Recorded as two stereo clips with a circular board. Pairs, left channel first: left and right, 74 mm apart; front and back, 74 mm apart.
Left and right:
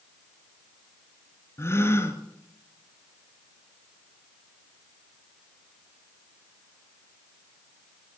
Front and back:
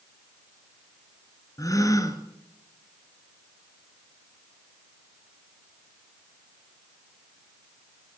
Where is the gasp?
40° left, 3 m.